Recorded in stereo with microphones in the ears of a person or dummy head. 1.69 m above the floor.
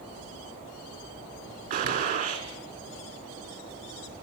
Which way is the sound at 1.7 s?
45° right (ahead or behind).